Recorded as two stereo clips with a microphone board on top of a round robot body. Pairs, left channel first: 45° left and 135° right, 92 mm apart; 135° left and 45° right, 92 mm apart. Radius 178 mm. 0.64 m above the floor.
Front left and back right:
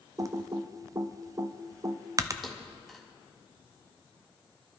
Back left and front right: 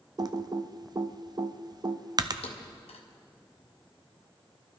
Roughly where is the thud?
Behind left.